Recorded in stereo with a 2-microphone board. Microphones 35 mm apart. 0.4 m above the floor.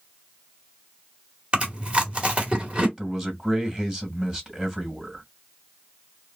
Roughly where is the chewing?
Right.